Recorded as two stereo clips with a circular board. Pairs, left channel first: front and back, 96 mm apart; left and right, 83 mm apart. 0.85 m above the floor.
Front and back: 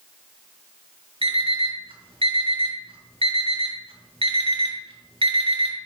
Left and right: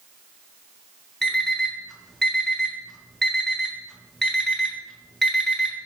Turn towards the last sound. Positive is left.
turn(degrees=175)